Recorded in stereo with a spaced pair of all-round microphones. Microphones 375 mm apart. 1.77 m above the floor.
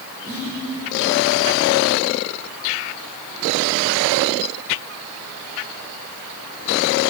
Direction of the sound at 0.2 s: 25° right (ahead or behind).